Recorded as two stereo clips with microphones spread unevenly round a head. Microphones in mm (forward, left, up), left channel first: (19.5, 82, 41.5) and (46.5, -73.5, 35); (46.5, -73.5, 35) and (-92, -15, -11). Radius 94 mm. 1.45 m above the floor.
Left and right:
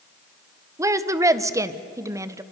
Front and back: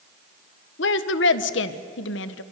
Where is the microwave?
I don't hear a microwave.